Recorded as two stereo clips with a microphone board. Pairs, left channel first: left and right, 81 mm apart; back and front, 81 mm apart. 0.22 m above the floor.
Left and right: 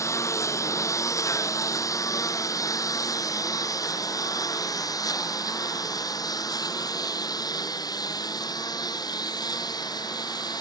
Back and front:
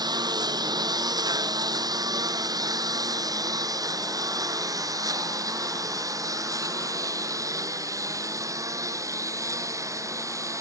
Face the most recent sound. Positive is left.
turn(degrees=55)